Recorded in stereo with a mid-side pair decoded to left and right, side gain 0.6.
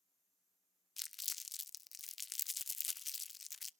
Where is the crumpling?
20° left, 0.6 m.